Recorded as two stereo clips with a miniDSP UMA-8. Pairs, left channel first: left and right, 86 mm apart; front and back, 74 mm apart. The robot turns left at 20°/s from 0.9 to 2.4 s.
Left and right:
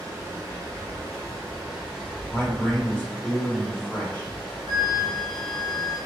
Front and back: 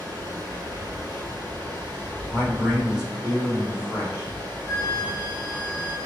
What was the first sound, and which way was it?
Running water, 150° right.